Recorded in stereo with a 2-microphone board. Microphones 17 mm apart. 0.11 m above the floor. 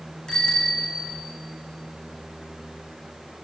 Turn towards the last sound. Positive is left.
turn(degrees=60)  # may be behind; listen again after turning